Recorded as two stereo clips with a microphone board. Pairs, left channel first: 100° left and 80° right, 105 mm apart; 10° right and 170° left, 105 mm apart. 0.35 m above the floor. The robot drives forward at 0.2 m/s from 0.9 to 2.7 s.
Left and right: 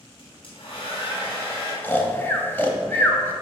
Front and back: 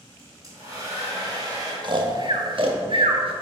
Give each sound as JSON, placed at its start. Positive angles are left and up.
{"t": 0.2, "sound": "a hair dryer", "azimuth_deg": 120, "distance_m": 2.0}
{"t": 1.8, "sound": "snoring", "azimuth_deg": 160, "distance_m": 0.6}